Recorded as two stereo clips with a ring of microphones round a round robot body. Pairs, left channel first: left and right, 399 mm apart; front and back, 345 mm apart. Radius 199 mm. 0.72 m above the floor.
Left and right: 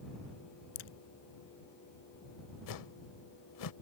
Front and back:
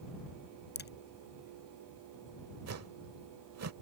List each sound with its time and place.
0.8 s a crack: 60° left
2.7 s a whoosh: 135° left